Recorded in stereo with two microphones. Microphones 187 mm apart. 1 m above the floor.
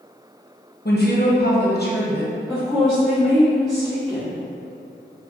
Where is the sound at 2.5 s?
Centre (ahead or behind), 1.2 m.